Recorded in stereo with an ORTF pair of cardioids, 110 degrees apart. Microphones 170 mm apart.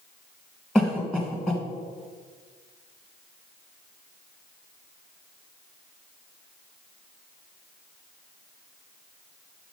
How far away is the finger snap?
No finger snap in this recording.